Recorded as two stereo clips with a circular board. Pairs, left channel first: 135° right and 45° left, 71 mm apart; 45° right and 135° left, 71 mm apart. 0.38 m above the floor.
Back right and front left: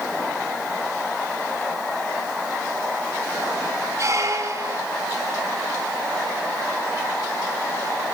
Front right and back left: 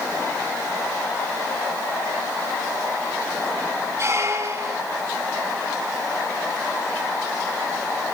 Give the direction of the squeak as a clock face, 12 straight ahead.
9 o'clock.